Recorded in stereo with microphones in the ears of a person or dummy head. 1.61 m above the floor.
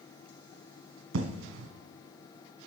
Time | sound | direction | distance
1.1 | an explosion | 85° right | 0.9 m